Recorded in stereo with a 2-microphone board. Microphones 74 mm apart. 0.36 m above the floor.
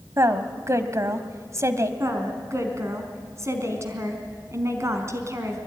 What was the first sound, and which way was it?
A woman speaking, 40° right (ahead or behind).